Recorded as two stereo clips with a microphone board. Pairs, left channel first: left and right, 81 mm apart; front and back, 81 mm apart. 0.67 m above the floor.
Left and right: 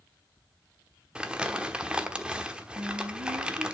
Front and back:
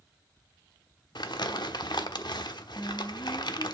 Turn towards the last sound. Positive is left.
turn(degrees=-70)